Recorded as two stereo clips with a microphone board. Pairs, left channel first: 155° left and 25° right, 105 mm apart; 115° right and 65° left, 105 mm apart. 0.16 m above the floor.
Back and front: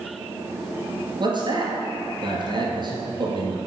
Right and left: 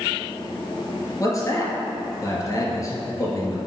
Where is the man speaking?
60° right, 2.5 m.